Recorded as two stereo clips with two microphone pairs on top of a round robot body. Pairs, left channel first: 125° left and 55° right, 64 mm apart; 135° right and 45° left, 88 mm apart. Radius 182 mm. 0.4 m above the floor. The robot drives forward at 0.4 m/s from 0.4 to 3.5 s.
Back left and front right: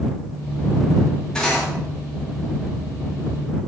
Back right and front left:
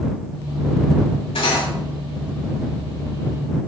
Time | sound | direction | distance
1.4 | cutlery clinking | 155° right | 2.5 m